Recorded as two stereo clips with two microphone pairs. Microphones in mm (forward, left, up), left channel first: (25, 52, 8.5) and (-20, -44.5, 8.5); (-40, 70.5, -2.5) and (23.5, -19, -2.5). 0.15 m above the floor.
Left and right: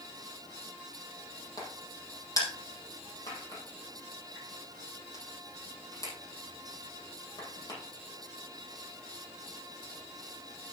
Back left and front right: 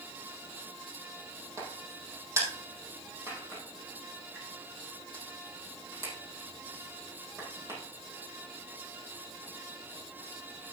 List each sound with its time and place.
1.6 s a crack: 10° left, 4 m